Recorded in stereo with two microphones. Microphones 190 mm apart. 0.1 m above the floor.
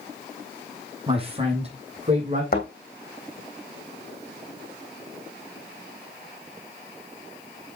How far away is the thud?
About 2.5 m.